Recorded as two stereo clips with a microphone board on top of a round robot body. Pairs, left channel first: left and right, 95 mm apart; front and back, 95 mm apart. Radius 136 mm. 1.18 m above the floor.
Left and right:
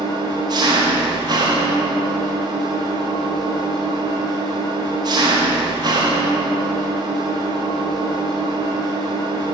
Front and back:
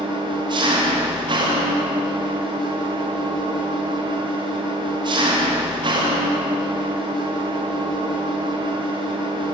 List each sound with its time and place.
0.0 s an engine running: 135° right, 1.2 m